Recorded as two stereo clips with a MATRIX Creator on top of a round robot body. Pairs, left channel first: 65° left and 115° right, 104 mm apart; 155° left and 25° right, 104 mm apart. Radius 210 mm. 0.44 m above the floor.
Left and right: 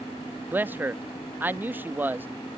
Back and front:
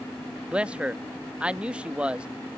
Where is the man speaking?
80° right.